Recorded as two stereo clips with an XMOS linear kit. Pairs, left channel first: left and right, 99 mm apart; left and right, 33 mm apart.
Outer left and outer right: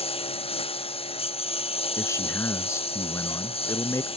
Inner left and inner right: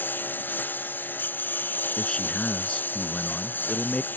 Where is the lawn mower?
80° left; by 4.2 s 75° left (ahead or behind).